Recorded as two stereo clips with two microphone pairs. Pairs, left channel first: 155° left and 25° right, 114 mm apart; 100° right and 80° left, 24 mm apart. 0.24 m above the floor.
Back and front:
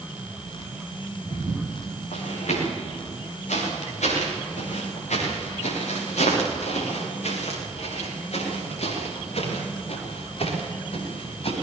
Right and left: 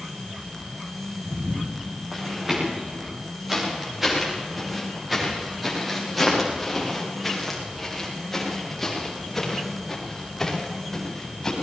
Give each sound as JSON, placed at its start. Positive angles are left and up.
{"t": 1.2, "sound": "footsteps", "azimuth_deg": 150, "distance_m": 10.0}